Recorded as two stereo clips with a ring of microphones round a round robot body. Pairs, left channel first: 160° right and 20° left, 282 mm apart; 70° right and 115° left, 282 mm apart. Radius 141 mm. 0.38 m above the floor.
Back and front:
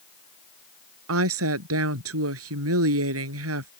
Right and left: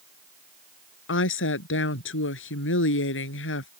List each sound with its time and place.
1.1 s a woman speaking: 20° right